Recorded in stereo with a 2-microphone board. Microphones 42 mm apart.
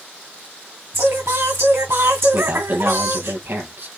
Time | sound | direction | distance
0.9 | singing | 70° right (ahead or behind) | 3 m
2.3 | a man speaking | 55° right (ahead or behind) | 4 m